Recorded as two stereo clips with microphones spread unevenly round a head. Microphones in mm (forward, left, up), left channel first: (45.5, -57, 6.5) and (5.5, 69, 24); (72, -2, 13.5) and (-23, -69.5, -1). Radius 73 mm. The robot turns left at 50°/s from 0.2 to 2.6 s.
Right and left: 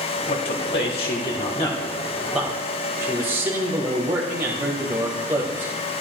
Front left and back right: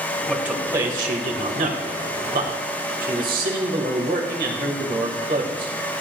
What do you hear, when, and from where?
0.3 s a man speaking: 60° right, 2 m; by 5.7 s 175° right, 2 m